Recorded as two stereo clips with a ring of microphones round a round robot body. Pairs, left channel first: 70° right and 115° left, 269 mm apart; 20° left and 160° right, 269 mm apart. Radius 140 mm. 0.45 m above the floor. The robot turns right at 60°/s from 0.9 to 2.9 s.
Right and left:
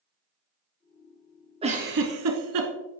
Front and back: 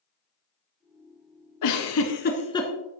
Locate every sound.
1.6 s a giggle: 40° left, 1.5 m; by 2.7 s 105° left, 1.5 m